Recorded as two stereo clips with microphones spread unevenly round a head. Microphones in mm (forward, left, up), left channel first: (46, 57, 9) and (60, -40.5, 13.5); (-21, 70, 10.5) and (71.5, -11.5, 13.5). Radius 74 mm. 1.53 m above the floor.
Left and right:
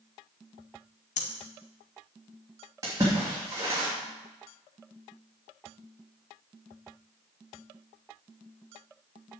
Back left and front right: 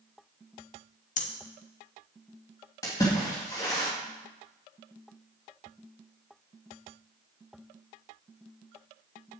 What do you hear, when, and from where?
1.2 s breathing: 120° left, 1.2 m
2.8 s a splash: 150° right, 2.5 m